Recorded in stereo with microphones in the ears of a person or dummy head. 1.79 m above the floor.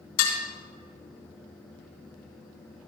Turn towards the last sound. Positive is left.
turn(degrees=75)  # may be behind; listen again after turning